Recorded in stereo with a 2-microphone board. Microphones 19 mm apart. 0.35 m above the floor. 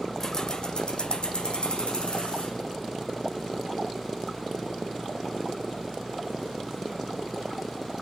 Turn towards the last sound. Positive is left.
turn(degrees=70)  # may be behind; listen again after turning